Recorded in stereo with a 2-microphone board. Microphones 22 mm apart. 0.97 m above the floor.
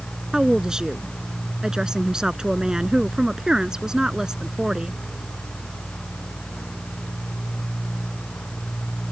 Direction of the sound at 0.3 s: 30° right (ahead or behind).